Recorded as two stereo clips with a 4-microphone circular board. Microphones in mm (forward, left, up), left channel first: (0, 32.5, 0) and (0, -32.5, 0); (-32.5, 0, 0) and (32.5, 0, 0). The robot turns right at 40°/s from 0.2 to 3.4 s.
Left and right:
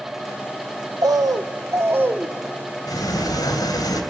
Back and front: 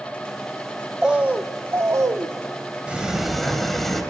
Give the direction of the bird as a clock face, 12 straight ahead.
3 o'clock.